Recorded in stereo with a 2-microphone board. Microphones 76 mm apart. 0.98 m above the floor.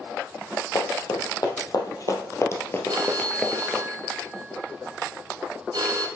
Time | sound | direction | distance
0.8 | running footsteps | 65° left (ahead or behind) | 2.5 m
2.9 | a phone ringing | 65° right (ahead or behind) | 2 m